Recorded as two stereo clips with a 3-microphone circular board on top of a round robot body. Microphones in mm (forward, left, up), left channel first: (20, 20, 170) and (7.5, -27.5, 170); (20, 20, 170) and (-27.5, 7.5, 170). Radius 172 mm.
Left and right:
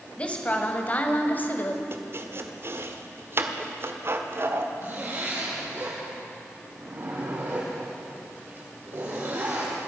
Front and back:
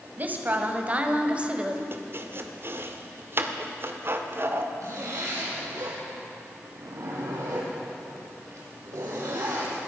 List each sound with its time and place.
0.2 s a woman speaking: 140° left, 3 m; by 1.8 s 125° left, 2.5 m
1.9 s chopping: 135° right, 1.8 m
4.8 s a zipper: 150° right, 6 m